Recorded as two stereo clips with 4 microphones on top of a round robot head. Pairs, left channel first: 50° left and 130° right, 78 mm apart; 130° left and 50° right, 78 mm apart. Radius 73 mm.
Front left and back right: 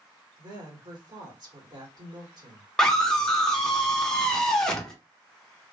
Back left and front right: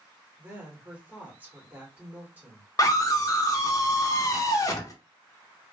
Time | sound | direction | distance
0.4 | a woman speaking | 115° right | 1.8 m
2.8 | a scream | 125° left | 0.8 m